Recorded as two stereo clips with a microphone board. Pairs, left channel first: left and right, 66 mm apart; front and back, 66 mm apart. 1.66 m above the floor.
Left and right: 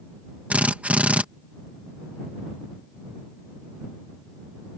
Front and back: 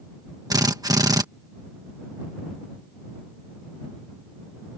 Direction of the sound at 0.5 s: 160° right.